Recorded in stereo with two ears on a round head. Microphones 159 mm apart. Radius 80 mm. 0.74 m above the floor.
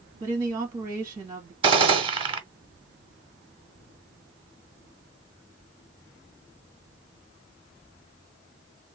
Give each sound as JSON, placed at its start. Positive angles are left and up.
{"t": 0.2, "sound": "a woman speaking", "side_deg": -15, "distance_m": 1.1}
{"t": 1.6, "sound": "a gunshot", "side_deg": -30, "distance_m": 0.7}